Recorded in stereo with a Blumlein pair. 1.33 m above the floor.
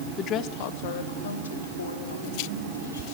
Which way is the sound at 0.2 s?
25° left.